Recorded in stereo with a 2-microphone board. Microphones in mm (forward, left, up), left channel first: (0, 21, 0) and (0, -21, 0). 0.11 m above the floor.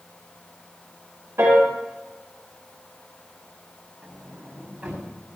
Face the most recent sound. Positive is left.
turn(degrees=-35)  # may be behind; listen again after turning